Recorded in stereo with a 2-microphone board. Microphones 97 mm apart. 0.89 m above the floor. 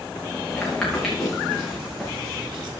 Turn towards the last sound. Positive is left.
turn(degrees=-5)  # may be behind; listen again after turning